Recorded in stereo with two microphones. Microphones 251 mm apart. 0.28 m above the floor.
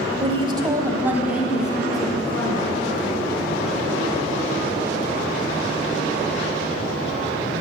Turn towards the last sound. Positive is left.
turn(degrees=5)  # may be behind; listen again after turning